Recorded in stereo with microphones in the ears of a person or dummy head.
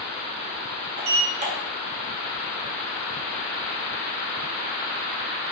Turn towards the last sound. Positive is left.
turn(degrees=-30)  # may be behind; listen again after turning